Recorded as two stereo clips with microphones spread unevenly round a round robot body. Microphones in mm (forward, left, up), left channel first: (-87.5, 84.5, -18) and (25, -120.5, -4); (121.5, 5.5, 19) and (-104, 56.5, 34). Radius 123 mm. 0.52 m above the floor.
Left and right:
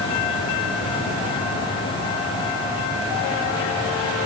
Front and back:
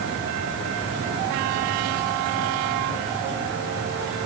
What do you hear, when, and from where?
Only background noise.